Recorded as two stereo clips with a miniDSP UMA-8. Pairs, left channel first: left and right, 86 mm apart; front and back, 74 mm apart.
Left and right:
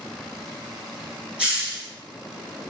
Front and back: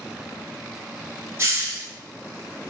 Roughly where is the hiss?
Behind.